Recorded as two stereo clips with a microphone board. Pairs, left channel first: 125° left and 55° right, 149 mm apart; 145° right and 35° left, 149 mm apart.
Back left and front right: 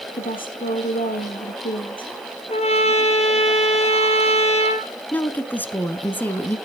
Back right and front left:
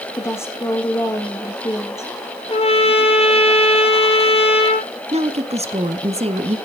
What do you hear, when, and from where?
0.2 s a woman speaking: 145° left, 4 m
2.5 s a trumpet: 170° left, 2.5 m
5.1 s a woman speaking: 50° left, 1.5 m